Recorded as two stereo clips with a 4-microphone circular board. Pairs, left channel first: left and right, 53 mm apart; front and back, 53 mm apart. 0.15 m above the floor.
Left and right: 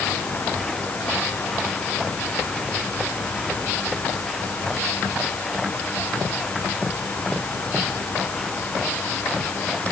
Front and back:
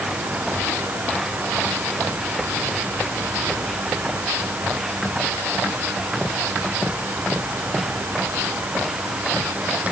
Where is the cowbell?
I don't hear a cowbell.